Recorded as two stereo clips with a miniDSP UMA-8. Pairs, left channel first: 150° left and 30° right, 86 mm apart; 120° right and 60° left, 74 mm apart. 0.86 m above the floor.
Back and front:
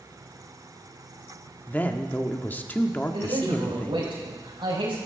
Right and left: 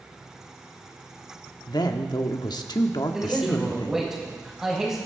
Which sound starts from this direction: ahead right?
A man speaking, at 3.1 s.